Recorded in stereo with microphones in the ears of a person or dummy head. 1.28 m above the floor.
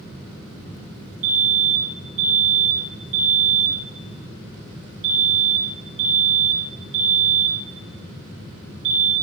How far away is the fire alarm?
About 9 m.